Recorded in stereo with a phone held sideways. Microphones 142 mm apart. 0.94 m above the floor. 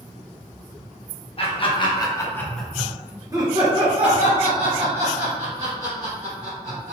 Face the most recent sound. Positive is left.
turn(degrees=-60)  # may be behind; listen again after turning